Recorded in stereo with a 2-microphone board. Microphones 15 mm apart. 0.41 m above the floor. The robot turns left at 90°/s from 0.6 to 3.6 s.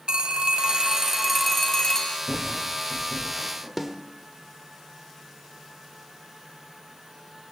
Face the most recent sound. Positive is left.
turn(degrees=-15)  # may be behind; listen again after turning